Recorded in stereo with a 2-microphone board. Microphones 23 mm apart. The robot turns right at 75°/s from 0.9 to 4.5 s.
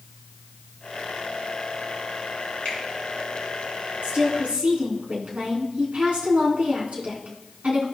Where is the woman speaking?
120° right, 3.5 m; by 7.8 s 85° right, 3.5 m.